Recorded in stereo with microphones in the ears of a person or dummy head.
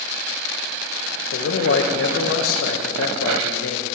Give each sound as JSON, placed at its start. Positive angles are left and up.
{"t": 1.3, "sound": "a man speaking", "side_deg": 65, "distance_m": 1.2}